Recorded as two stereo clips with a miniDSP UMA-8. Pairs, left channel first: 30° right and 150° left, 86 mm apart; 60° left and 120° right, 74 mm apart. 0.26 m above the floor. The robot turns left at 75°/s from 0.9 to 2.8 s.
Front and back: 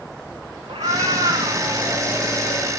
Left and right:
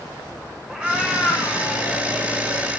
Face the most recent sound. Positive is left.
turn(degrees=10)